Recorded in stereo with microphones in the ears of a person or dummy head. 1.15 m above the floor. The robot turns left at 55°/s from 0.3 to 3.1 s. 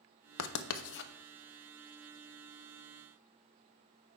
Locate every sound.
0.4 s writing: 85° left, 0.6 m; by 1.1 s 55° left (ahead or behind), 0.6 m